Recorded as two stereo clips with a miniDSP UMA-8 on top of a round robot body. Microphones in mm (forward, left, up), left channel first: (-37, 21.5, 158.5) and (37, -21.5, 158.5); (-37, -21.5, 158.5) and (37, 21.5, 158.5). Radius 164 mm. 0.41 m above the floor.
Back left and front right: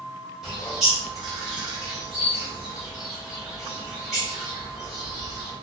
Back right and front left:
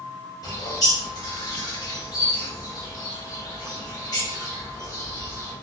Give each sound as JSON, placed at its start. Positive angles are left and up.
{"t": 0.4, "sound": "a bird", "azimuth_deg": -115, "distance_m": 1.5}